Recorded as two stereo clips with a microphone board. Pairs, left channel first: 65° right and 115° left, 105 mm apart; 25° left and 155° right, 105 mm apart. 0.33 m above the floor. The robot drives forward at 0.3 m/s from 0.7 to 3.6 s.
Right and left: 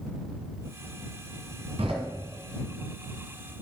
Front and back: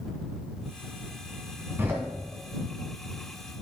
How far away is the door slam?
About 1.8 m.